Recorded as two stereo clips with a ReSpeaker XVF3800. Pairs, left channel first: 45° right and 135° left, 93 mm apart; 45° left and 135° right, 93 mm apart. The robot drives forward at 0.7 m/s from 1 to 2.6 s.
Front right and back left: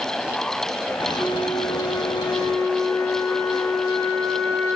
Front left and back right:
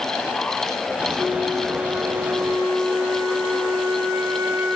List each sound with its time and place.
1.2 s a flute: 80° right, 3.5 m; by 4.8 s 95° right, 3 m